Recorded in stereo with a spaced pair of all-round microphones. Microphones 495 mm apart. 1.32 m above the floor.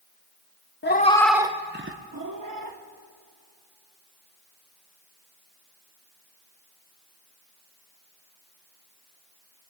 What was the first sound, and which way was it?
A cat meowing, 25° left (ahead or behind).